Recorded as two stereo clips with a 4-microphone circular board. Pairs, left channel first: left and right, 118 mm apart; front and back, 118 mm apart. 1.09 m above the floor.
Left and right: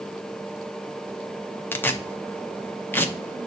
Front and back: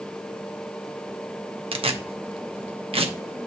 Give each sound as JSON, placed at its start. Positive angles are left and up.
{"t": 1.7, "sound": "tearing paper", "azimuth_deg": 160, "distance_m": 0.7}